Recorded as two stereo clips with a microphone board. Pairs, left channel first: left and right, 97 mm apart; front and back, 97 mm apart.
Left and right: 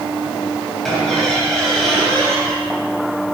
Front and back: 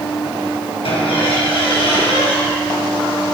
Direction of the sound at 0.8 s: 5° left.